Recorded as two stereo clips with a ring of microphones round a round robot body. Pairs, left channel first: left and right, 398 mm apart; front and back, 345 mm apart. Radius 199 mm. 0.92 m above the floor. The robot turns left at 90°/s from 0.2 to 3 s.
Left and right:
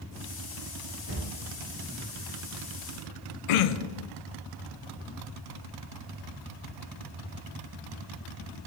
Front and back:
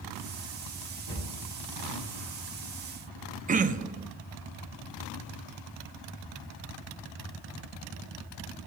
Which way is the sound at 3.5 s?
110° left.